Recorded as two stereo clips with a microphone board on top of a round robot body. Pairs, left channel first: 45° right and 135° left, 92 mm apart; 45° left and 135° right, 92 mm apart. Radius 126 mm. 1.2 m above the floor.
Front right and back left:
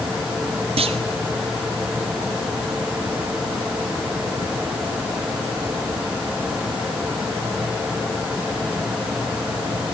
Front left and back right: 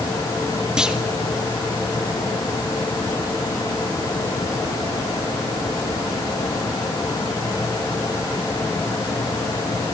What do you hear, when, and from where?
0.8 s a clunk: 145° left, 1.5 m